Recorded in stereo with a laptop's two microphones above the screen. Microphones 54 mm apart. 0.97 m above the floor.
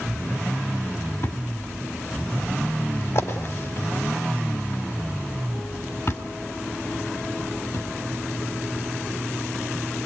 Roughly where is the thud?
Left.